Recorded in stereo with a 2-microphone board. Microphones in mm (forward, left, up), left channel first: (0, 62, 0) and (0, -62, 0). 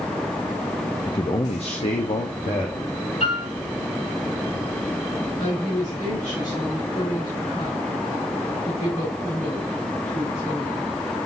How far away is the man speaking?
About 0.5 m.